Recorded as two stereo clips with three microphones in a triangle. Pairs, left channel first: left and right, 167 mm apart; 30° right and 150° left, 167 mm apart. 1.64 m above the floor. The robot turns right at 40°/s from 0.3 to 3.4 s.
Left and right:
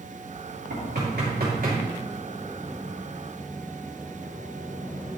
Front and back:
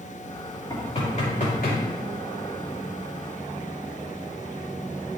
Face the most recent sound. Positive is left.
turn(degrees=15)